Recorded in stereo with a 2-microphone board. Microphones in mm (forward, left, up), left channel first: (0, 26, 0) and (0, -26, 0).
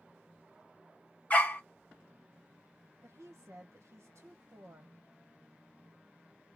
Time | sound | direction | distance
1.3 | a dog barking | 30° left (ahead or behind) | 1.6 m
3.0 | a woman speaking | 65° right (ahead or behind) | 1.0 m